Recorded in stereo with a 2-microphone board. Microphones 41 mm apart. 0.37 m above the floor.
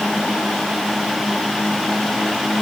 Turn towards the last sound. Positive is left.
No sound to turn to.